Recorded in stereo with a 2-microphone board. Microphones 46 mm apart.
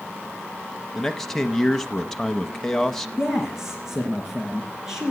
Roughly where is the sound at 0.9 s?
Centre.